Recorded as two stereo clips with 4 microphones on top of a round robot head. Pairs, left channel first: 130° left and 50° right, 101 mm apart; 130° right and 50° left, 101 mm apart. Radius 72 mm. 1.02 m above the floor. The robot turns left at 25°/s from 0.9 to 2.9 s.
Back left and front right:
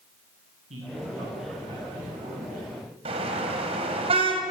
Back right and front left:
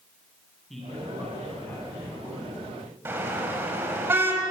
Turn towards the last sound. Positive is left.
turn(degrees=-20)